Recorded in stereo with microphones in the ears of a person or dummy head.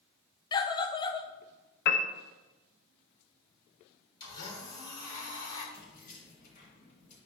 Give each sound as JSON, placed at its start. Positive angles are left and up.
{"t": 0.5, "sound": "a scream", "side_deg": 20, "distance_m": 0.5}
{"t": 1.9, "sound": "a piano", "side_deg": 55, "distance_m": 0.6}
{"t": 4.2, "sound": "a blender", "side_deg": 20, "distance_m": 3.0}
{"t": 5.7, "sound": "keys jangling", "side_deg": 45, "distance_m": 2.5}